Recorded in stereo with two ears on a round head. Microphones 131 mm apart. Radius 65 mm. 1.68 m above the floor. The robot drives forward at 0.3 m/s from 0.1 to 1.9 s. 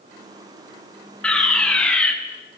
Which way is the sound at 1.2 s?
5° left (ahead or behind).